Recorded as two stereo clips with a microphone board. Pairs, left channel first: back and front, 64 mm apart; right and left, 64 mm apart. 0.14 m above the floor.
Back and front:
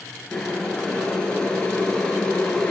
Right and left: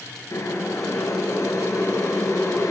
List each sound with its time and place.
0.3 s boiling: 110° right, 0.8 m